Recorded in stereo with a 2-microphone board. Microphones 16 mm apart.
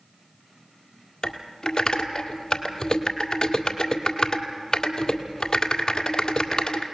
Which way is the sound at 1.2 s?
40° left (ahead or behind).